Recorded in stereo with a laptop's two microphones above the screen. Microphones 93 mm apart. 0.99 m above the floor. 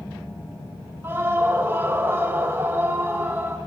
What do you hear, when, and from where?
1.0 s a scream: 25° right (ahead or behind), 0.7 m